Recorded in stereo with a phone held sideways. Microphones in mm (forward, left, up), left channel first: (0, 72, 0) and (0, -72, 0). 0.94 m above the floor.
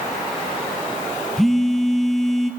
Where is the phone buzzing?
Centre (ahead or behind), 1.3 m.